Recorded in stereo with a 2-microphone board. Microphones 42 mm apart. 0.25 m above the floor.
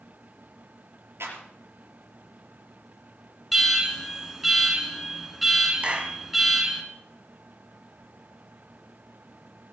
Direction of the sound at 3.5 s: 5° right (ahead or behind).